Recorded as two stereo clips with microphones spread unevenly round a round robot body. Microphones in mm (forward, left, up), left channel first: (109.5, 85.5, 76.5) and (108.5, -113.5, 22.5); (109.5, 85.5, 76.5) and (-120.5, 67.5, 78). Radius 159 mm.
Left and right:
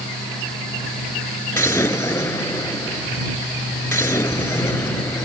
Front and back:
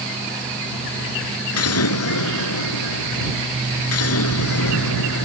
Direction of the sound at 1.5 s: 15° left.